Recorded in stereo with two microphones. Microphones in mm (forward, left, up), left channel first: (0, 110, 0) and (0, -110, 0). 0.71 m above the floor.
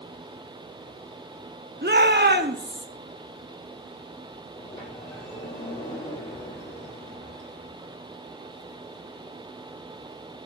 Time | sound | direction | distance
1.8 | a shout | 50° right (ahead or behind) | 1.3 m
4.6 | a sliding door | 20° left (ahead or behind) | 4 m